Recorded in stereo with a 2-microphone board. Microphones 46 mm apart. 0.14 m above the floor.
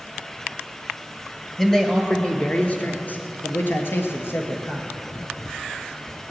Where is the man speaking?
10° left (ahead or behind), 2 m; by 4.9 s 65° left (ahead or behind), 2.5 m.